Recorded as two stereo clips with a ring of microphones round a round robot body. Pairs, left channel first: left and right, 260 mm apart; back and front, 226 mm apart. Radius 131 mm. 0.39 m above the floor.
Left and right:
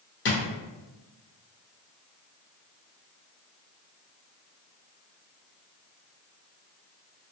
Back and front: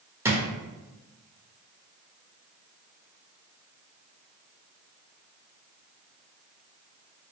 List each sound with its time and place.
0.2 s a drawer: 75° left, 0.7 m